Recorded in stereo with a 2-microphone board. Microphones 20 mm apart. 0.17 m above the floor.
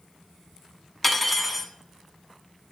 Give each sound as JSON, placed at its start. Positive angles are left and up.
{"t": 1.0, "sound": "cutlery clinking", "side_deg": 10, "distance_m": 0.9}